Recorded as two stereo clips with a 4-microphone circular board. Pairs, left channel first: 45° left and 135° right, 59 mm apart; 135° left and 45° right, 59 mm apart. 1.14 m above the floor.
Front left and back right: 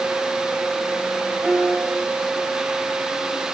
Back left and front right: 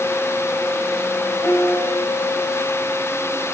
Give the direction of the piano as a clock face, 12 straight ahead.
7 o'clock.